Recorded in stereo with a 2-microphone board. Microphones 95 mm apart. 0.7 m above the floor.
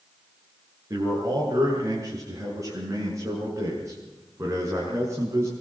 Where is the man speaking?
35° right (ahead or behind), 8.5 m; by 5.5 s 25° right (ahead or behind), 7 m.